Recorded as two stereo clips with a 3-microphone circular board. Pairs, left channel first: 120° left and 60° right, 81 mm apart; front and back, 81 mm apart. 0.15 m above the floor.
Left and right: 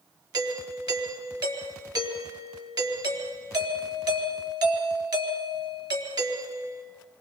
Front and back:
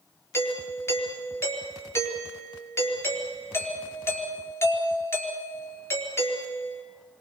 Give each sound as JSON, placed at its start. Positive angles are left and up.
{"t": 0.3, "sound": "a doorbell", "azimuth_deg": -50, "distance_m": 4.0}